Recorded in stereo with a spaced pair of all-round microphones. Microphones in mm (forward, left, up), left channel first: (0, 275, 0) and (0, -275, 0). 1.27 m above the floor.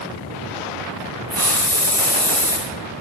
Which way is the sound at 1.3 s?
25° right (ahead or behind).